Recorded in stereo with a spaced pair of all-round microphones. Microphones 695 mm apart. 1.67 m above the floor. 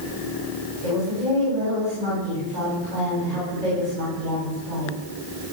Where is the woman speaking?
75° right (ahead or behind), 8 m.